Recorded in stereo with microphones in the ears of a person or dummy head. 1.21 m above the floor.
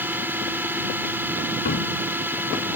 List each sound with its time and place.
0.0 s a drone: 10° right (ahead or behind)
1.6 s a cupboard door: 45° left (ahead or behind)